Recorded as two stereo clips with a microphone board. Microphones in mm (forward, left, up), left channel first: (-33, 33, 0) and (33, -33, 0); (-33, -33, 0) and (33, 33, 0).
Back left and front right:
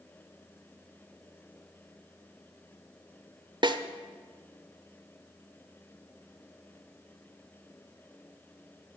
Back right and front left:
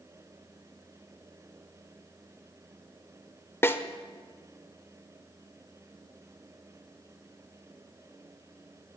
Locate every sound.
3.6 s a snare drum: 70° right, 0.6 m